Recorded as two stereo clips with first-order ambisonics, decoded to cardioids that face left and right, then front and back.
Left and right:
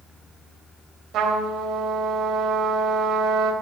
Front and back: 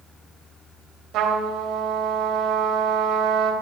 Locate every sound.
1.1 s a trumpet: 140° right, 3.5 m